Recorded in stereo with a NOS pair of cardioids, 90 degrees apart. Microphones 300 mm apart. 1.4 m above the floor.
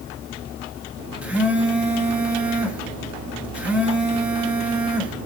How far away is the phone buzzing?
About 0.9 m.